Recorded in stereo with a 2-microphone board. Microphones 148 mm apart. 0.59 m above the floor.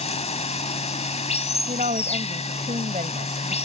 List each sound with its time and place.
0.0 s running water: 45° left (ahead or behind)
1.7 s a woman speaking: 50° right (ahead or behind)